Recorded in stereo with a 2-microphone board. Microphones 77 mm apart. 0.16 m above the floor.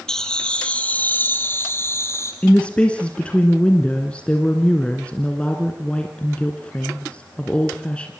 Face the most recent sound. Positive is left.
turn(degrees=15)  # may be behind; listen again after turning